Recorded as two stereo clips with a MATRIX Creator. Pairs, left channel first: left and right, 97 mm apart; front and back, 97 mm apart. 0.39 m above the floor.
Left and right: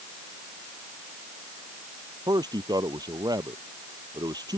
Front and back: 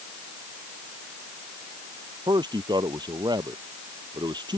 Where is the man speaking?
135° right.